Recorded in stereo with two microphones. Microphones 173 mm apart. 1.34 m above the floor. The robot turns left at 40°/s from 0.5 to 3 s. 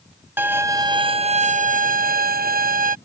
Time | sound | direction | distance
0.4 | a violin | 15° right | ?